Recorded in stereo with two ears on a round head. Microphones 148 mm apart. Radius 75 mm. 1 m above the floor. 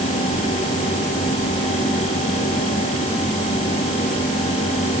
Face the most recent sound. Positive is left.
No sound to turn to.